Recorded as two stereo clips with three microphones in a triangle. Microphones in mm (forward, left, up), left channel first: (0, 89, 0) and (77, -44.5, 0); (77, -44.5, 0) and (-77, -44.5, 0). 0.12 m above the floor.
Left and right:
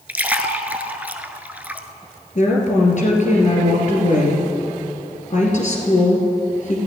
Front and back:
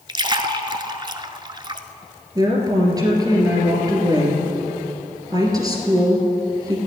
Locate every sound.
0.1 s a splash: 135° right, 0.6 m
2.4 s a woman speaking: 120° left, 2.5 m